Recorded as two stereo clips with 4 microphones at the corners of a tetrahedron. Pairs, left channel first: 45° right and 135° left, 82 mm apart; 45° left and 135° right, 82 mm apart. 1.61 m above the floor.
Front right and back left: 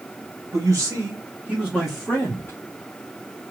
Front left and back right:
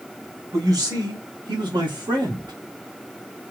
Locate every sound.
0.5 s a man speaking: straight behind, 1.6 m; by 2.5 s 110° right, 1.2 m